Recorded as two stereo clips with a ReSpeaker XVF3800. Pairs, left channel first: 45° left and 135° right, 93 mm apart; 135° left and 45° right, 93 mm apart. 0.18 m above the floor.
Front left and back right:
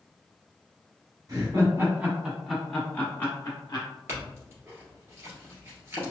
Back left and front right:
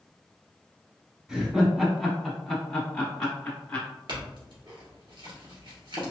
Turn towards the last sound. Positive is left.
turn(degrees=-75)